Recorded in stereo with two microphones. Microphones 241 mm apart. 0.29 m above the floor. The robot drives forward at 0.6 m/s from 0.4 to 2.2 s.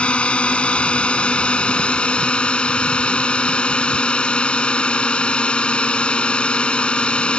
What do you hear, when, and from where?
0.0 s a drone: 5° left (ahead or behind)